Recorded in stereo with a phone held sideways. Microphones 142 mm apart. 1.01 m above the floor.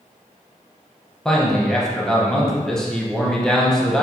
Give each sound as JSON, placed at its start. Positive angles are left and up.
{"t": 1.2, "sound": "a man speaking", "side_deg": 5, "distance_m": 0.6}